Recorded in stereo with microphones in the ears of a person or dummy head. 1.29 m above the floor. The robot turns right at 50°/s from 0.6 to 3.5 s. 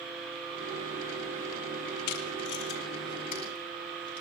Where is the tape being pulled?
75° left (ahead or behind), 2.5 m; by 4.2 s 30° left (ahead or behind), 2.5 m.